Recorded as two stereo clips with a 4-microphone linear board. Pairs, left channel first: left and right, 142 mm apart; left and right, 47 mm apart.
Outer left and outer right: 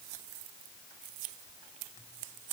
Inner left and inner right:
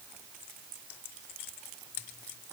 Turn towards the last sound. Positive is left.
No sound to turn to.